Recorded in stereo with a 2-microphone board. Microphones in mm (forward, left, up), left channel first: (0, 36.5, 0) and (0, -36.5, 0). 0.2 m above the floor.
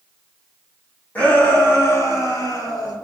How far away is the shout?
About 1.4 m.